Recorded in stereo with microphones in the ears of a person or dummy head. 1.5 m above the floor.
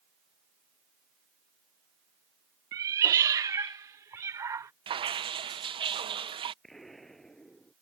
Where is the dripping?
30° right (ahead or behind).